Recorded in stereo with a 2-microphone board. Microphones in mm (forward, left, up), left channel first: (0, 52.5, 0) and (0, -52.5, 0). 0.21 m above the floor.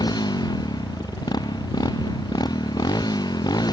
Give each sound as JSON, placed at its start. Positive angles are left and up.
{"t": 0.0, "sound": "a motorcycle", "side_deg": 40}